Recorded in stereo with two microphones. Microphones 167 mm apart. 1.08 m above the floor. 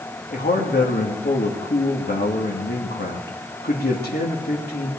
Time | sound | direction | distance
0.3 | a man speaking | 80° left | 1.7 m